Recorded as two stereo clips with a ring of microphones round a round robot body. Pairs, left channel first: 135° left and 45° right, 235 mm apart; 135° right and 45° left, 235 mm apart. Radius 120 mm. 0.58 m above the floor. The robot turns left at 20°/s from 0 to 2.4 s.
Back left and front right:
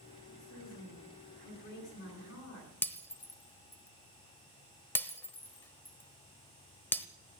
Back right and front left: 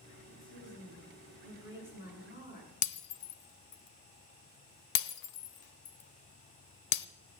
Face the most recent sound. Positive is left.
turn(degrees=-145)